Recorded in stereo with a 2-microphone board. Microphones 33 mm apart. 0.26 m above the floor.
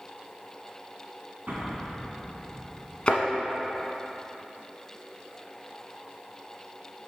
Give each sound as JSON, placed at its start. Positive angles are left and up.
{"t": 1.5, "sound": "an explosion", "side_deg": -60, "distance_m": 1.8}
{"t": 3.1, "sound": "a thud", "side_deg": 35, "distance_m": 1.0}